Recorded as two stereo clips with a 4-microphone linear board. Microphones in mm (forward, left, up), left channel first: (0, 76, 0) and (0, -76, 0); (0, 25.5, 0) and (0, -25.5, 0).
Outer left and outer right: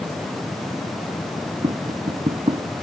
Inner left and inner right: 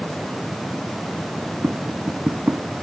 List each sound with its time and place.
1.6 s tapping: 45° right (ahead or behind)